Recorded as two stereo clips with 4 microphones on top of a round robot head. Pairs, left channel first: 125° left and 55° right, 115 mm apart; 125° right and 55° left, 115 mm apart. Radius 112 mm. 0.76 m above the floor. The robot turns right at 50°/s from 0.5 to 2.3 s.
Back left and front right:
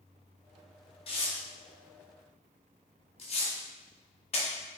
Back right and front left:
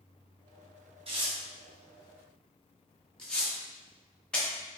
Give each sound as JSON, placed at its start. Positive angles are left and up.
{"t": 1.1, "sound": "tearing paper", "azimuth_deg": 90, "distance_m": 0.9}